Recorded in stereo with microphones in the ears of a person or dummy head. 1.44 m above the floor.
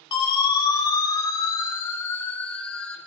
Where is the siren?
25° left (ahead or behind), 5.5 m; by 3.0 s centre (ahead or behind), 5 m.